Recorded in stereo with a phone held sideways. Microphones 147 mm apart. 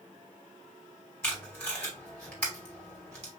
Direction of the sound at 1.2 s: 15° left (ahead or behind).